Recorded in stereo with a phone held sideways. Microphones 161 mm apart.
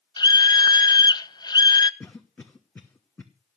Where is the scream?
25° left (ahead or behind), 0.8 m.